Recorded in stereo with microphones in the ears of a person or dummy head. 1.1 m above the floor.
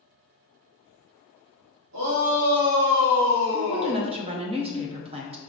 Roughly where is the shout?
Right.